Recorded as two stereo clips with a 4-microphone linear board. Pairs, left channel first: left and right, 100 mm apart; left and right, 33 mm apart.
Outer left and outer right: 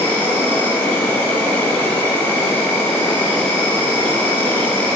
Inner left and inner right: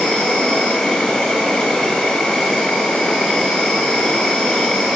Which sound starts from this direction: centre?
An insect, at 0.0 s.